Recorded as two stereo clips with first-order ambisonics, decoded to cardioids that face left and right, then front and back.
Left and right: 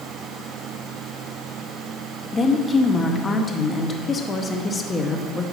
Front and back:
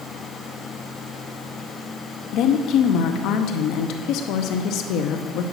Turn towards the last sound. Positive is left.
turn(degrees=15)